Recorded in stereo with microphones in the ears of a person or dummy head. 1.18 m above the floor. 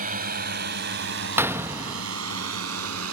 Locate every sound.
0.0 s a drone: 45° right (ahead or behind); by 3.1 s 85° right
1.4 s a gunshot: 10° right (ahead or behind)